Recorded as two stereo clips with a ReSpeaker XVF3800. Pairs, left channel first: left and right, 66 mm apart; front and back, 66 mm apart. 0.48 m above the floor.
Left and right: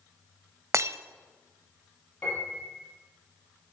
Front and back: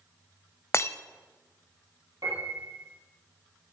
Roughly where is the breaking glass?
Ahead right.